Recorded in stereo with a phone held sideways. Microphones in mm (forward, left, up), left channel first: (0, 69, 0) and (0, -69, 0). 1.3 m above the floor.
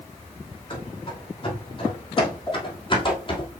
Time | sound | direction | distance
0.7 | running footsteps | 35° left (ahead or behind) | 3.5 m
2.5 | a pop | 20° left (ahead or behind) | 3.5 m